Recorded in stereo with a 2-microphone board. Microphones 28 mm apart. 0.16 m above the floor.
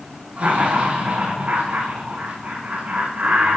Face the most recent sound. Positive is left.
turn(degrees=-80)